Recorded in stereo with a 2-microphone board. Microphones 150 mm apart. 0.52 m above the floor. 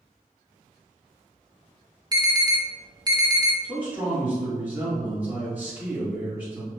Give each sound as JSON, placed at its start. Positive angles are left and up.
{"t": 2.1, "sound": "an alarm", "side_deg": -30, "distance_m": 0.5}
{"t": 3.6, "sound": "a man speaking", "side_deg": -10, "distance_m": 1.3}